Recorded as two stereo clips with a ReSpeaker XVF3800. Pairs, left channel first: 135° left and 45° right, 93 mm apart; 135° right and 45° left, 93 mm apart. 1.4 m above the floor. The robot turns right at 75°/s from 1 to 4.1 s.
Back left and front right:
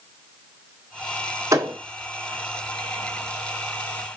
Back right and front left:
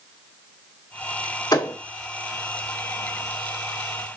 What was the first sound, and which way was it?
A thud, 100° right.